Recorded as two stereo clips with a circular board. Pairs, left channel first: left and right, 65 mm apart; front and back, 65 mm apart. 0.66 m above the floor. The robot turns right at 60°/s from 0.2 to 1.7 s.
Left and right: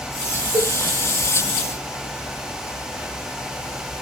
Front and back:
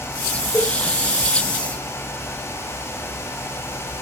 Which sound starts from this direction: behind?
A cowbell, at 0.5 s.